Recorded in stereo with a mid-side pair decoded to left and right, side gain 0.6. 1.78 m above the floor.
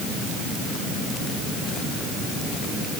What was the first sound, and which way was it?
Only background noise.